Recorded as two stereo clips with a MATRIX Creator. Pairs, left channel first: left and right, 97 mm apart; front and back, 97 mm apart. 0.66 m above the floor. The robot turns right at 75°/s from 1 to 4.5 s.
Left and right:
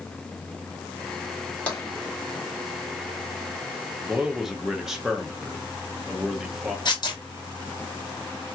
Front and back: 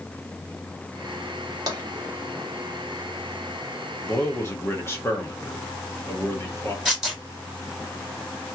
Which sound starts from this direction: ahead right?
A man speaking, at 4.1 s.